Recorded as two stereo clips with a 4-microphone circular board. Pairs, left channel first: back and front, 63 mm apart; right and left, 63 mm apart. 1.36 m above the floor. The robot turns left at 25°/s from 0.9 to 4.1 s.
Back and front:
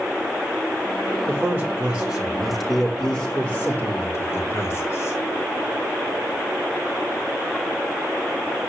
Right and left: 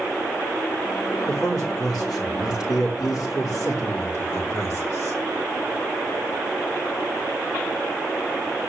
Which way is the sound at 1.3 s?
60° right.